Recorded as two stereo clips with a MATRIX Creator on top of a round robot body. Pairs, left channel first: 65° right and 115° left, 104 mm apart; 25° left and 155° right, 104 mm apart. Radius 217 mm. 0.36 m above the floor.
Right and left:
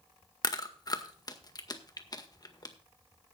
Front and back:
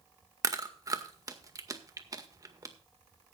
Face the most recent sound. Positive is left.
turn(degrees=-110)